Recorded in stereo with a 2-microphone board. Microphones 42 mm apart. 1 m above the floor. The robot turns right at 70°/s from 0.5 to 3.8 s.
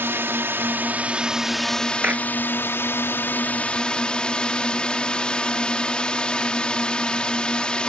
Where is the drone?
75° right; by 7.9 s 155° left.